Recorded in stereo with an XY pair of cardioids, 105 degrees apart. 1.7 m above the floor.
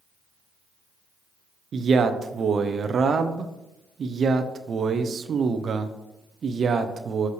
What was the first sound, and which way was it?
A man speaking, 50° right.